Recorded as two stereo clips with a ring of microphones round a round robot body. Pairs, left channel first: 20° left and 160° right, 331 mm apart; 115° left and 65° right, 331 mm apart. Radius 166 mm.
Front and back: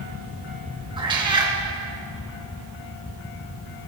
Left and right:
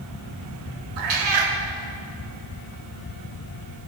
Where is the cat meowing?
80° right, 1.6 m.